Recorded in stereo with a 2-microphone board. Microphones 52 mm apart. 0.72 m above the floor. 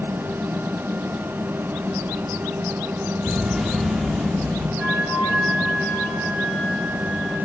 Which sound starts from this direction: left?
A flute, at 4.8 s.